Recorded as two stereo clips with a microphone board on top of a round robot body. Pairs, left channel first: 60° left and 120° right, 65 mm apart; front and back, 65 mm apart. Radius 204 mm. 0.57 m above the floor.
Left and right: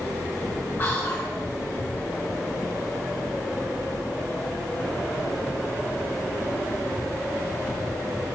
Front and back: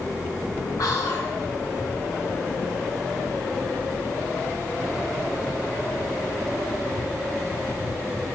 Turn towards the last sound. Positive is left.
turn(degrees=10)